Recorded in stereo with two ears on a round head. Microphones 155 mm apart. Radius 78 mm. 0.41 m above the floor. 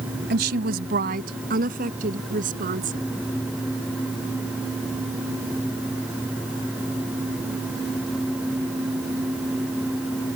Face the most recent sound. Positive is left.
turn(degrees=-50)  # may be behind; listen again after turning